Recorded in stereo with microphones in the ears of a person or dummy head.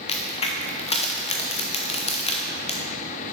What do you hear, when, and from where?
0.1 s a crack: 30° left (ahead or behind), 0.8 m